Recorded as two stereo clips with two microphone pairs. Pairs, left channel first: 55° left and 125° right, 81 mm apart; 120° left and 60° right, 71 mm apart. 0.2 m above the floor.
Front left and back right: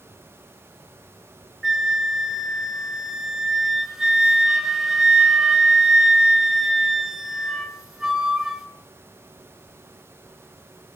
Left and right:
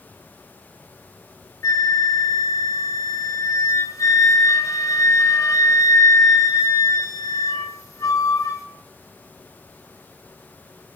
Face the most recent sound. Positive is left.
turn(degrees=150)